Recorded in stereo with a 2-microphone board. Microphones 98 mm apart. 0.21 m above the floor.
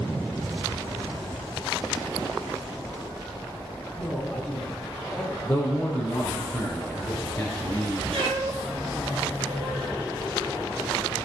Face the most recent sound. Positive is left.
turn(degrees=-80)